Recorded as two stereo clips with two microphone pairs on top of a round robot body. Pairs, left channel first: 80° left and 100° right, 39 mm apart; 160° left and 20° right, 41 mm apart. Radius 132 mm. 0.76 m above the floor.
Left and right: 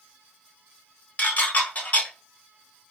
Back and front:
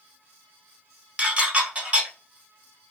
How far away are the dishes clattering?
About 1.3 m.